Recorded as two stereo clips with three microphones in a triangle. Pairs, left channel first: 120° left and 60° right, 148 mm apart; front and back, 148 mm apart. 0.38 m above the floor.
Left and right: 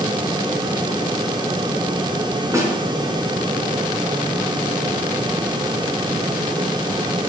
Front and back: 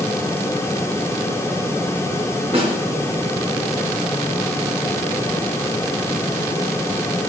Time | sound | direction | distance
2.5 | a snare drum | 130° right | 2.5 m